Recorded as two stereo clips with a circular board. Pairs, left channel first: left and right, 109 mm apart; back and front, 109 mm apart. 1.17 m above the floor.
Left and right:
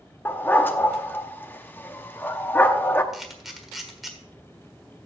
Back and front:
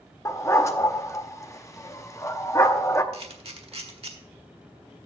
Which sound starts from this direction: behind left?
A dog barking, at 0.2 s.